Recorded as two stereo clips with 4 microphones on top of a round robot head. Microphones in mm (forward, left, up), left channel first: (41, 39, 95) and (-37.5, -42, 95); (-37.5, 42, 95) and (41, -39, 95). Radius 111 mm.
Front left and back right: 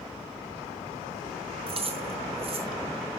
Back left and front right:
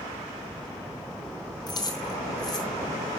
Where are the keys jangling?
170° right, 3 m.